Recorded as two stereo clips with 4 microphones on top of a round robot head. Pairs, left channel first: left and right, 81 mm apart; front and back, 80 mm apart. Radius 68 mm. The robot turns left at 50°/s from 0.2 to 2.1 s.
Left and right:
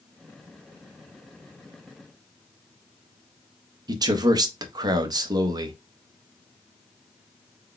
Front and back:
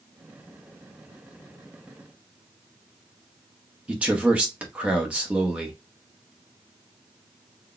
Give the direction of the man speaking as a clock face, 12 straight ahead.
4 o'clock.